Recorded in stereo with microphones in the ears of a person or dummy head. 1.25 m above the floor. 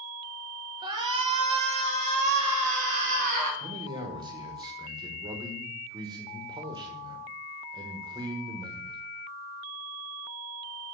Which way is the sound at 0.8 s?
25° right (ahead or behind).